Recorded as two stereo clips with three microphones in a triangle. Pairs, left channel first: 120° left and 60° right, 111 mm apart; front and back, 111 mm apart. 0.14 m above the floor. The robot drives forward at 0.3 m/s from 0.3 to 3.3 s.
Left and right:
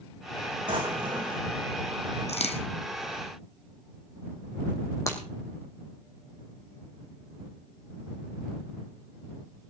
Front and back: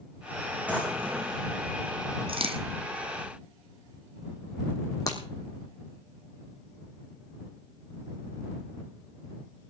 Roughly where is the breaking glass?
Ahead left.